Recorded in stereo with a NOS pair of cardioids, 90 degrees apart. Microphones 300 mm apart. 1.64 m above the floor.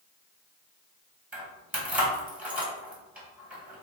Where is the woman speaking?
I don't hear a woman speaking.